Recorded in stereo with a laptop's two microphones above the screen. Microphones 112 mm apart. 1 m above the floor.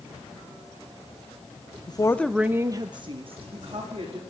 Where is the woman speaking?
40° left (ahead or behind), 0.7 m; by 4.2 s 60° right (ahead or behind), 2.5 m.